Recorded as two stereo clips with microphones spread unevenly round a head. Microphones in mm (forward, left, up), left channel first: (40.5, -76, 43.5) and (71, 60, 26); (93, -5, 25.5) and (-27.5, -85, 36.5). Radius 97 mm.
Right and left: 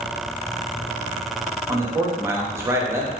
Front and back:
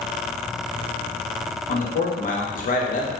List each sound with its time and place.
1.7 s a man speaking: 5° left, 0.6 m